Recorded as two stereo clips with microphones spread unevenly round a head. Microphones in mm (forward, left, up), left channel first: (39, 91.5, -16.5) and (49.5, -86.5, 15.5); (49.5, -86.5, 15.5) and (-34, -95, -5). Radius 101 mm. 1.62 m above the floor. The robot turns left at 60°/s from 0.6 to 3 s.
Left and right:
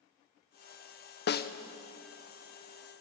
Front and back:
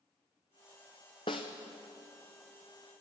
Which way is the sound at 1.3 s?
65° left.